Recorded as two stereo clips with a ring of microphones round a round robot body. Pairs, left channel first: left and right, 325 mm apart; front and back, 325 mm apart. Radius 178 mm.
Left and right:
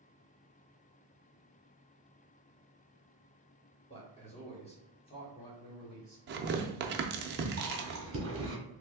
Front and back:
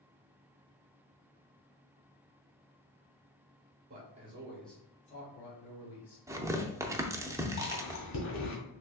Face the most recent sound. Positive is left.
turn(degrees=-40)